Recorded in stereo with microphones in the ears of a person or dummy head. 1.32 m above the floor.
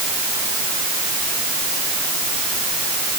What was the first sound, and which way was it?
Only background noise.